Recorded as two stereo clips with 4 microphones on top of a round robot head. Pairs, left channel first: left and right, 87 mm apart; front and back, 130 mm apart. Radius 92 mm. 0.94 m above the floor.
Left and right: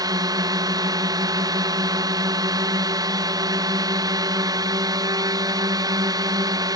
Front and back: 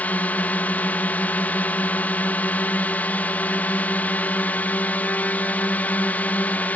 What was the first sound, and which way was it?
A drone, 75° right.